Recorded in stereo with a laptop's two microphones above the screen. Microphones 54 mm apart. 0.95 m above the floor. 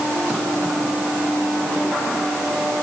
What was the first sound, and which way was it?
Only background noise.